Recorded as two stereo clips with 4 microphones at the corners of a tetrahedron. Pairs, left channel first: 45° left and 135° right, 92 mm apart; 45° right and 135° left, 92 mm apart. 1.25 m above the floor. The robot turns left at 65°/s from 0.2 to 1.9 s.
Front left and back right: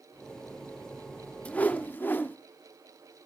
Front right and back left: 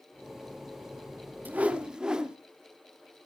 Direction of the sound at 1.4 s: 95° left.